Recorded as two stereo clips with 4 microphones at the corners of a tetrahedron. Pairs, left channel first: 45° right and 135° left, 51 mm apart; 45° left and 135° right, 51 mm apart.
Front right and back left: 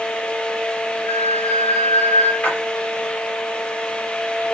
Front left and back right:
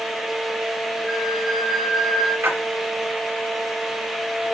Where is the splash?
105° right, 3.5 m.